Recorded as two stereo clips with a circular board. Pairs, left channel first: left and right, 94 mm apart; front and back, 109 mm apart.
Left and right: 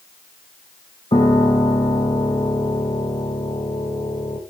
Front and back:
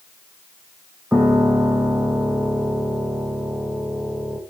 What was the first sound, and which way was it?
A piano, 105° left.